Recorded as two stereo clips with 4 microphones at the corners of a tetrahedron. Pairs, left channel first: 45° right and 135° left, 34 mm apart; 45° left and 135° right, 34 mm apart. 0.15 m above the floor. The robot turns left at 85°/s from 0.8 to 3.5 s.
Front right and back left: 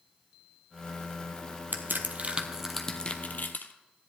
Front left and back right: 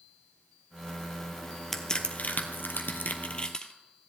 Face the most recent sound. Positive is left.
turn(degrees=-20)